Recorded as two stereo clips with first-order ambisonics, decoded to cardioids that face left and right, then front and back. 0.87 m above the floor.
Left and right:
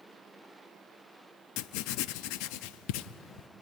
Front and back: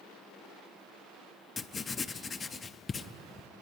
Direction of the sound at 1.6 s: 70° left.